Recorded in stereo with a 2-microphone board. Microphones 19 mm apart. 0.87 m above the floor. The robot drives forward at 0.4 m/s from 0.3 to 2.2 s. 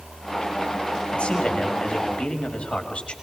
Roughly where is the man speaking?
Left.